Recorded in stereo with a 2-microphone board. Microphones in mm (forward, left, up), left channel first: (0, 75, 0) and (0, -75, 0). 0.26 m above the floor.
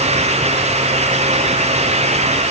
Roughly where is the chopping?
I don't hear chopping.